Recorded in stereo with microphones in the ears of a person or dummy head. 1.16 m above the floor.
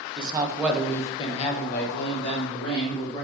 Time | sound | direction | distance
0.2 | a man speaking | 30° right (ahead or behind) | 0.7 m